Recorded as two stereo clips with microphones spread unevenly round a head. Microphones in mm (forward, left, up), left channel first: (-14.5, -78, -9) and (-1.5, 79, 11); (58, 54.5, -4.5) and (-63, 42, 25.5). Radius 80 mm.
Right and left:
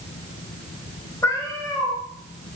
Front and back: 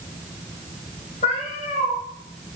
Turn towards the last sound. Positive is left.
turn(degrees=-20)